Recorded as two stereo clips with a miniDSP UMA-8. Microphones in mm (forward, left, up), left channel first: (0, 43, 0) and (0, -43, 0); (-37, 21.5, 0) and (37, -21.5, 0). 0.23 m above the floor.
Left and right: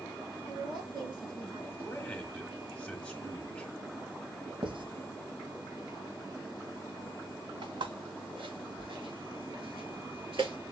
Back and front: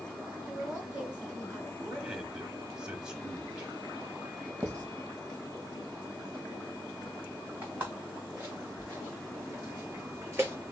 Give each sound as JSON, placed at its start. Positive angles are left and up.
{"t": 0.5, "sound": "a woman speaking", "azimuth_deg": -105, "distance_m": 3.0}
{"t": 1.8, "sound": "a man speaking", "azimuth_deg": 40, "distance_m": 1.0}
{"t": 4.6, "sound": "writing", "azimuth_deg": -90, "distance_m": 1.8}
{"t": 7.6, "sound": "footsteps", "azimuth_deg": -100, "distance_m": 1.9}